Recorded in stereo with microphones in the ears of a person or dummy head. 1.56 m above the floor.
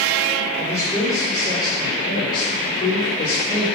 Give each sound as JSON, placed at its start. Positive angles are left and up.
{"t": 0.6, "sound": "a man speaking", "side_deg": 15, "distance_m": 4.0}